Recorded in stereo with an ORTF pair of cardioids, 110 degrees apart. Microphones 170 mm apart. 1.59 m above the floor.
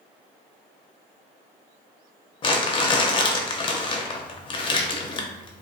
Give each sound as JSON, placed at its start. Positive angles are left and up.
{"t": 2.4, "sound": "crumpling", "azimuth_deg": 30, "distance_m": 0.5}